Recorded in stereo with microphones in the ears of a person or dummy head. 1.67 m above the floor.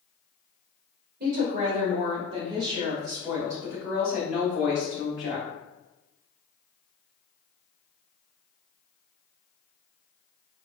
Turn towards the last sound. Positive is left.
turn(degrees=30)  # may be behind; listen again after turning